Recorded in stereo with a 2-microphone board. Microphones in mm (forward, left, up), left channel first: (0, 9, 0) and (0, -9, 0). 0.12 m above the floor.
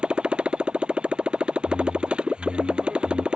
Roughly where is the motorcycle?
Right.